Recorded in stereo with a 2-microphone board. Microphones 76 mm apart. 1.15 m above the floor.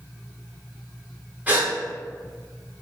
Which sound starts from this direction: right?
A gasp, at 1.5 s.